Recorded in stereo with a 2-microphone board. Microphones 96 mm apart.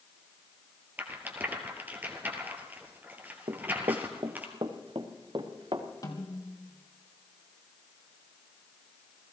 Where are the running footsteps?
70° right (ahead or behind), 0.8 m; by 5.9 s 55° right (ahead or behind), 2 m.